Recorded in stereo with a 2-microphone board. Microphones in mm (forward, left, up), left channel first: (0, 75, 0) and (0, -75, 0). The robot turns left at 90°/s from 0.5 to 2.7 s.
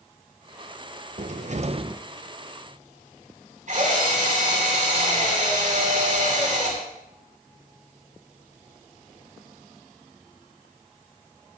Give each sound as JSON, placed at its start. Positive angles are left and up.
{"t": 1.2, "sound": "a cupboard door", "azimuth_deg": -75, "distance_m": 0.5}
{"t": 3.7, "sound": "a drill", "side_deg": -55, "distance_m": 7.0}